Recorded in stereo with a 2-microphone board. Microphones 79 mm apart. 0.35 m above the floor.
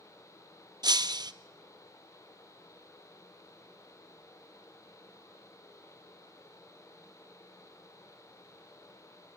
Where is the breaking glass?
60° right (ahead or behind), 0.7 m.